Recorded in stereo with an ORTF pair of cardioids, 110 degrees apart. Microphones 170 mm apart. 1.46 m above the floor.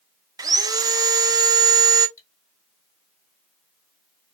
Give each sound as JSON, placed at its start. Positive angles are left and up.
{"t": 0.4, "sound": "sawing", "azimuth_deg": -20, "distance_m": 0.6}
{"t": 2.2, "sound": "cutlery clinking", "azimuth_deg": 15, "distance_m": 1.6}